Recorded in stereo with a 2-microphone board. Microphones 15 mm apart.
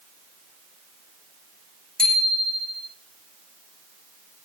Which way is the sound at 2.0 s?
50° left (ahead or behind).